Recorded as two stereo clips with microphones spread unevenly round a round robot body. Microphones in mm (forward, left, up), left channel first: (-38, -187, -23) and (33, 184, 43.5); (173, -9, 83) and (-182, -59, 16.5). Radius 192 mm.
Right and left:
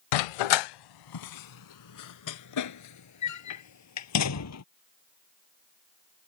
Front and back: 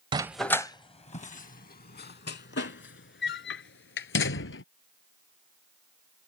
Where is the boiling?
No boiling in this recording.